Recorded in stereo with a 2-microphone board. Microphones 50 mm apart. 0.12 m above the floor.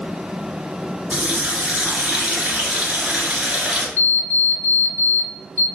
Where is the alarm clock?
30° left (ahead or behind), 0.6 m.